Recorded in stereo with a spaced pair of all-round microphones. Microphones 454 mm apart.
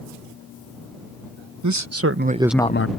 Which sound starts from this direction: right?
A man speaking, at 1.6 s.